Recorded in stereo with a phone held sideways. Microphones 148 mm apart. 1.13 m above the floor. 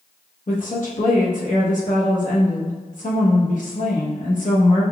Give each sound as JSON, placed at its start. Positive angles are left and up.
{"t": 0.5, "sound": "a woman speaking", "side_deg": 60, "distance_m": 1.0}